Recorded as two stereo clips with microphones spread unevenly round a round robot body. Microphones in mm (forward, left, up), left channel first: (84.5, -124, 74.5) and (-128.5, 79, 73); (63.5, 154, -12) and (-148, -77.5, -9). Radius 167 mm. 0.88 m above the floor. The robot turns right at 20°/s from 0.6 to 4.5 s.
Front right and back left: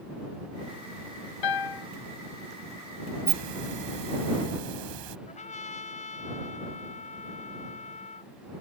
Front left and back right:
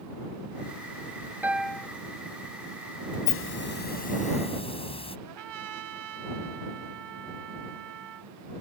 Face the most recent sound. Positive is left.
turn(degrees=-110)